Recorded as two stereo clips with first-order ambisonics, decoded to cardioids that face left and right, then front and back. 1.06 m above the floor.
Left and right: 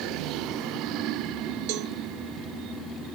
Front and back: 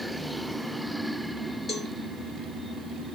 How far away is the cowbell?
About 0.9 m.